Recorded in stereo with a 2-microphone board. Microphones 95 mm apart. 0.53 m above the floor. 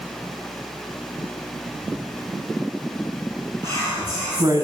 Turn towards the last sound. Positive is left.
turn(degrees=-45)  # may be behind; listen again after turning